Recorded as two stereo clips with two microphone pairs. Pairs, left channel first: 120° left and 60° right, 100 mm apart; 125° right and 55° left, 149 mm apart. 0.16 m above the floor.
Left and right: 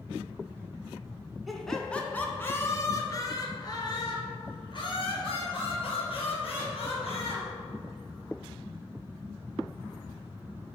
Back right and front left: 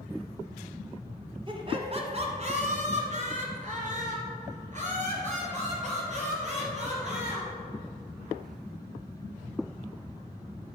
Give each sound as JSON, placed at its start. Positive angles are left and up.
{"t": 1.5, "sound": "laughter", "azimuth_deg": 25, "distance_m": 1.3}